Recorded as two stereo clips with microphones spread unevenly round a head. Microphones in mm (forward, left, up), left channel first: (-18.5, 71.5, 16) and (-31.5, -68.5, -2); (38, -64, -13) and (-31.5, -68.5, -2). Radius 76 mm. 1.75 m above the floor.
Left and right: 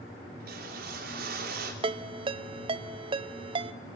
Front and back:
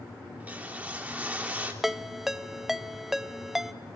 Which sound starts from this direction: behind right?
A ringtone, at 1.8 s.